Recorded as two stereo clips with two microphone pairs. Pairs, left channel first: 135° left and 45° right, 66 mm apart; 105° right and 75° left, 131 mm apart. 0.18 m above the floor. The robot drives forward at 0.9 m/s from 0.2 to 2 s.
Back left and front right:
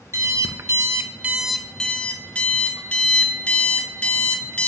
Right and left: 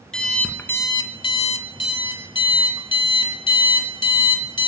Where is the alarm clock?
20° right, 1.0 m; by 4.7 s 155° right, 0.9 m.